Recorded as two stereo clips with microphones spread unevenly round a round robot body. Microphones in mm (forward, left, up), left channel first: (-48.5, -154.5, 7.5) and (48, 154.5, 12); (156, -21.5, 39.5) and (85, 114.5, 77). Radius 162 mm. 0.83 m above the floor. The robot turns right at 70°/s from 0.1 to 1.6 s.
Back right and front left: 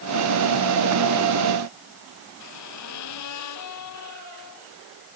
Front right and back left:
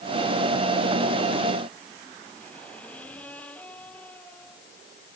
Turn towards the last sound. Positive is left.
turn(degrees=-150)